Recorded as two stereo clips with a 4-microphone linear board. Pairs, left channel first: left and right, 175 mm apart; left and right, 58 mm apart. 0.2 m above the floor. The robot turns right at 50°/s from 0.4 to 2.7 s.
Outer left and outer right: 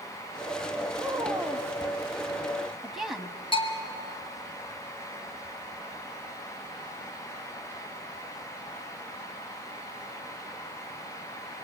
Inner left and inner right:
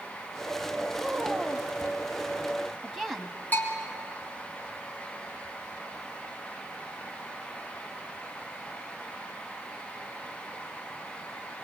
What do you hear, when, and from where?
1.0 s a woman speaking: 20° right (ahead or behind), 1.3 m; by 3.4 s centre (ahead or behind), 1.3 m
3.5 s a bell: 30° left (ahead or behind), 2.5 m